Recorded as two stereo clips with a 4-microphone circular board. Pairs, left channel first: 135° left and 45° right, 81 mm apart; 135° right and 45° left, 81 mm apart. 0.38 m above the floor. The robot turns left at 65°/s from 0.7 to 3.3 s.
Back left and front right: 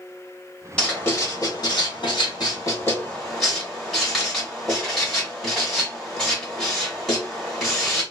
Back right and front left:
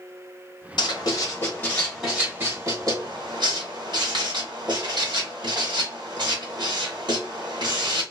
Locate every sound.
0.8 s writing: 150° right, 1.8 m; by 8.0 s 45° left, 1.8 m